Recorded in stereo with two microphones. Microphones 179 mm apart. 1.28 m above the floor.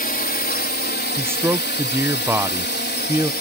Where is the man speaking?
15° right (ahead or behind).